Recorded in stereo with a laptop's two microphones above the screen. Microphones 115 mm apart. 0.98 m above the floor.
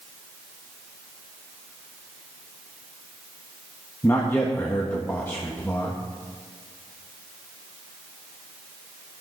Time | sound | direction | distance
4.0 | a man speaking | 20° left (ahead or behind) | 1.4 m